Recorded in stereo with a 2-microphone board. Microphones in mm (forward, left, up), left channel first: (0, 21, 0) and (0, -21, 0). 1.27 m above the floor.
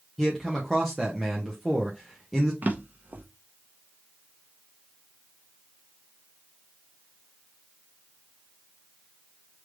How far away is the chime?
I don't hear a chime.